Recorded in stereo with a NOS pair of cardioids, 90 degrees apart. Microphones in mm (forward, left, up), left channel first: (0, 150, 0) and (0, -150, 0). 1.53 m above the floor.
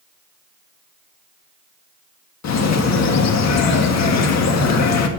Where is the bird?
60° left, 2.0 m.